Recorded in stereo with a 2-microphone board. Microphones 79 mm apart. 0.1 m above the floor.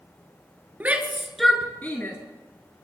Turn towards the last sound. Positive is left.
turn(degrees=30)  # may be behind; listen again after turning